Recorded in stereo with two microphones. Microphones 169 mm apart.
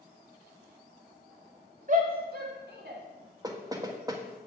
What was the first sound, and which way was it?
A shout, 50° right (ahead or behind).